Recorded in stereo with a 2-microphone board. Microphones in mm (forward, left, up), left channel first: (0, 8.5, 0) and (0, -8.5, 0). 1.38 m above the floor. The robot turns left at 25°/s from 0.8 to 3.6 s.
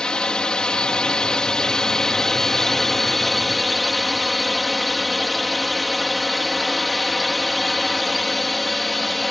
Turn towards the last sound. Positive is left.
turn(degrees=10)